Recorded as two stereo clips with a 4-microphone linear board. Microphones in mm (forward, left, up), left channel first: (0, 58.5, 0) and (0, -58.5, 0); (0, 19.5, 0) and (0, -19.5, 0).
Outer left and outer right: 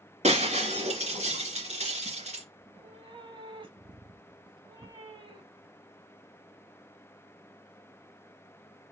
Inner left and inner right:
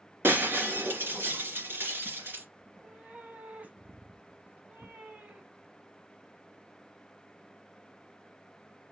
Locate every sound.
0.2 s breaking glass: 75° right (ahead or behind), 2.5 m
2.6 s a cat meowing: 45° right (ahead or behind), 0.9 m